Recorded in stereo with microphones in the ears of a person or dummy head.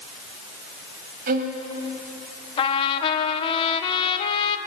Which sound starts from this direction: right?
A violin, at 1.3 s.